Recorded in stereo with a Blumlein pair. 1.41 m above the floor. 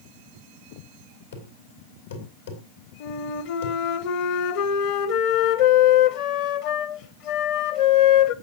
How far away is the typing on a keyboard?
I don't hear typing on a keyboard.